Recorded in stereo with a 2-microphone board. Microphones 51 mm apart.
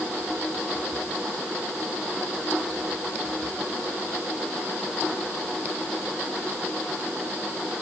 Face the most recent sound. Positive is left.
No sound to turn to.